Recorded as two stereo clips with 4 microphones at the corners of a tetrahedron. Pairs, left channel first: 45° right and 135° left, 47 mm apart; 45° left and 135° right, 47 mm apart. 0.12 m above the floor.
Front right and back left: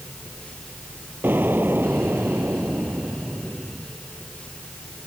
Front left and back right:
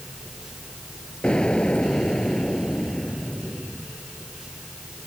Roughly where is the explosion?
Left.